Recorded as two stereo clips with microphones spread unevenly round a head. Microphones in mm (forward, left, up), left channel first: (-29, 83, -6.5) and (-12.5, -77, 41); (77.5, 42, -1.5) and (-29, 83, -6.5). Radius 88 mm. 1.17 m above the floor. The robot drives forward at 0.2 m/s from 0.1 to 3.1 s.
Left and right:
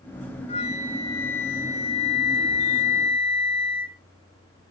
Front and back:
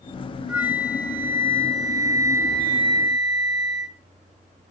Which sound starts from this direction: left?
A flute, at 0.5 s.